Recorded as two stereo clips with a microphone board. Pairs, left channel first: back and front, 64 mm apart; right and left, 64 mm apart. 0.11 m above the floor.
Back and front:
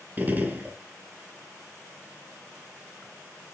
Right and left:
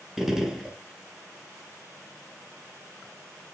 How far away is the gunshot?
About 1.5 m.